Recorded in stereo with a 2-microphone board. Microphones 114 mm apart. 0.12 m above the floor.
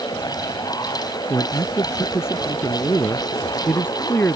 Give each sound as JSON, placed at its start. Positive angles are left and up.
{"t": 1.3, "sound": "a man speaking", "side_deg": 25}